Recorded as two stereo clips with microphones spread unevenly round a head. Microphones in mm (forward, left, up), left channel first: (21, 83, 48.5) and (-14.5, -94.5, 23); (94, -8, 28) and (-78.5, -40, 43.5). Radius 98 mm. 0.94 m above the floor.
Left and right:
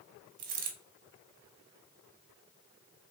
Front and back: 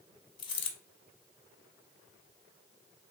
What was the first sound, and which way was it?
A dropped coin, 55° right.